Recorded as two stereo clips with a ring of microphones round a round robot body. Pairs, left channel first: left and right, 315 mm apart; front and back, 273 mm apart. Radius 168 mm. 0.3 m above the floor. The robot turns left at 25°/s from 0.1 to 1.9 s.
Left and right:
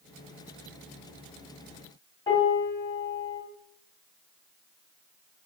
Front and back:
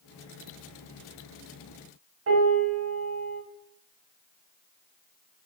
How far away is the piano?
About 1.2 m.